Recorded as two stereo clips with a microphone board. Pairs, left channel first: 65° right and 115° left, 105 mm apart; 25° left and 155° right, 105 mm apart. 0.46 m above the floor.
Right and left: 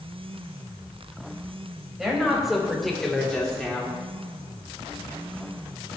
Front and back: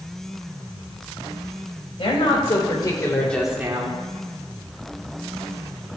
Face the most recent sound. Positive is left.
turn(degrees=-140)